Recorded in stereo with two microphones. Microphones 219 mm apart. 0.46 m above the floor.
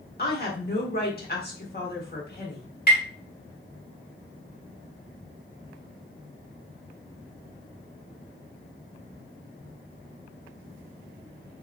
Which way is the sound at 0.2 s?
45° left (ahead or behind).